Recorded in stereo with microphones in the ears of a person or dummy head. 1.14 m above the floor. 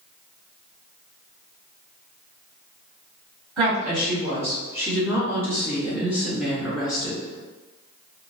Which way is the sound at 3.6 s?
5° right (ahead or behind).